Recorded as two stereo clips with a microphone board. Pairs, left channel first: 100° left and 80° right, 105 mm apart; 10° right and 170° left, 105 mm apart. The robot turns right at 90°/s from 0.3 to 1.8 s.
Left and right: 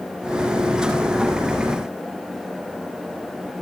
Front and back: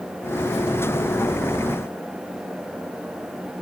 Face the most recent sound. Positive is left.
No sound to turn to.